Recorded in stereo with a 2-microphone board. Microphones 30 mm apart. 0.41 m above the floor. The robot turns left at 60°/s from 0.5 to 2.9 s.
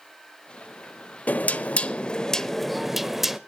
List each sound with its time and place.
1.3 s knocking: 90° left, 0.8 m; by 3.4 s 10° right, 0.8 m